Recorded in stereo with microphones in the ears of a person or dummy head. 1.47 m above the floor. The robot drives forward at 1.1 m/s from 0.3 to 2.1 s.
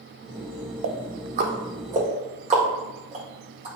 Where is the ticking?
65° right (ahead or behind), 1.0 m; by 3.7 s 30° right (ahead or behind), 2.0 m.